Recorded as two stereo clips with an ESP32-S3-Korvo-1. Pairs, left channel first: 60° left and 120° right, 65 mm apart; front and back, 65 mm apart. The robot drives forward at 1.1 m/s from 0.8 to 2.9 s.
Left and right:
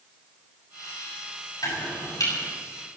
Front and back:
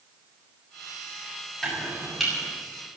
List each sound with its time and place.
1.6 s chopping: 85° left, 7.5 m; by 2.3 s 90° left, 7 m